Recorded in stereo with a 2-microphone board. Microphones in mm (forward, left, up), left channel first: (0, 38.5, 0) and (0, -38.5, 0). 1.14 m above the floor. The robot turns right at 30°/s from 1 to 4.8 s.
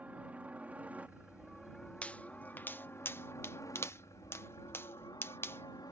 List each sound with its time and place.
0.0 s a helicopter: 20° right; by 5.9 s 95° left
2.0 s a pop: 20° left (ahead or behind); by 5.9 s 30° left (ahead or behind)